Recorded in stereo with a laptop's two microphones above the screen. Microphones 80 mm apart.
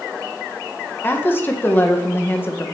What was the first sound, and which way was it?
A woman speaking, 25° left (ahead or behind).